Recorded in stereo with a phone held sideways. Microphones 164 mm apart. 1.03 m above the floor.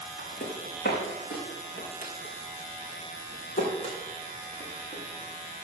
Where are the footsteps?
70° left (ahead or behind), 3.5 m; by 5.6 s 30° left (ahead or behind), 4.5 m.